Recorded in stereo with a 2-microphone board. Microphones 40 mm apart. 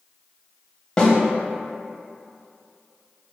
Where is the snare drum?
20° left (ahead or behind), 0.6 m.